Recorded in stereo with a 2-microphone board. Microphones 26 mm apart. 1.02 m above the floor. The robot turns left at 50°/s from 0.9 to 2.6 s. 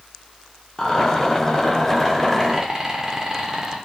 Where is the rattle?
35° left (ahead or behind), 0.7 m; by 3.8 s 25° right (ahead or behind), 0.7 m.